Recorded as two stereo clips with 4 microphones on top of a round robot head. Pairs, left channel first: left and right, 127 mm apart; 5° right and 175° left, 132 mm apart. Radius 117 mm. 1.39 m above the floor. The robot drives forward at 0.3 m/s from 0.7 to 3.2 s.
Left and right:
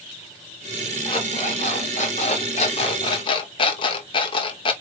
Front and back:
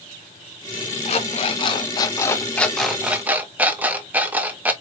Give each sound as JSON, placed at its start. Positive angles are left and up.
{"t": 1.1, "sound": "an alarm clock", "azimuth_deg": 25, "distance_m": 0.8}